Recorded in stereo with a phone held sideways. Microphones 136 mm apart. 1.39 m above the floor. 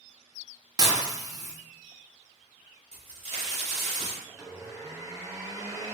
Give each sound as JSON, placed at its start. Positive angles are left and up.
{"t": 0.8, "sound": "dishes clattering", "side_deg": -25, "distance_m": 0.8}
{"t": 2.9, "sound": "a crack", "side_deg": -45, "distance_m": 2.0}
{"t": 4.3, "sound": "a blender", "side_deg": -20, "distance_m": 0.7}